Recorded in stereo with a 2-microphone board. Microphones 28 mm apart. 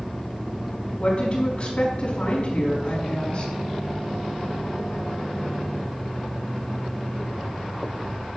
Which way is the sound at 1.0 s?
35° left (ahead or behind).